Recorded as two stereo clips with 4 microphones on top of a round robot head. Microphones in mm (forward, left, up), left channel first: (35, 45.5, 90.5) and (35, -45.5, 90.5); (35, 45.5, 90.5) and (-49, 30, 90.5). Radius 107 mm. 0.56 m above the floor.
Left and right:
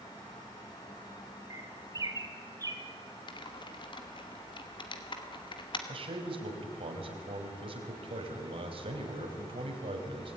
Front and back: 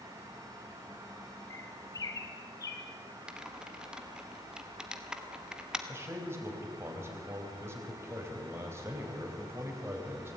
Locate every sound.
1.5 s a bird: 40° right, 3 m
3.3 s typing on a keyboard: 110° left, 2.5 m
5.9 s a man speaking: 110° right, 4 m